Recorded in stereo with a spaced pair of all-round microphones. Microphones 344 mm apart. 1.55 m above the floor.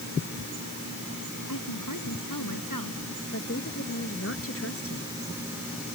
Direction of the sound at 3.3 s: 40° left (ahead or behind).